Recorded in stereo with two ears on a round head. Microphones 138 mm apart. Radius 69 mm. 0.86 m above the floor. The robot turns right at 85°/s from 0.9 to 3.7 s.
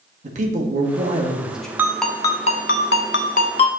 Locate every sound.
0.2 s a man speaking: 60° right, 1.3 m; by 1.7 s 5° left, 1.3 m
1.8 s a ringtone: 15° right, 0.7 m; by 3.8 s 145° left, 0.7 m